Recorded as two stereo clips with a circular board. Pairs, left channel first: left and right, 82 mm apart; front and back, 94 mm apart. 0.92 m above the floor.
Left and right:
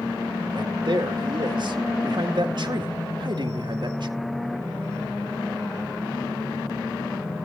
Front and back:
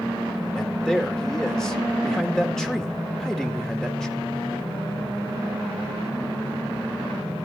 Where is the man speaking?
85° right, 1.8 m.